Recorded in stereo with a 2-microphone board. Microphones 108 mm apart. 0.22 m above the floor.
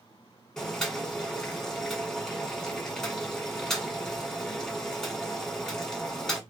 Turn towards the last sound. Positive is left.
turn(degrees=5)  # may be behind; listen again after turning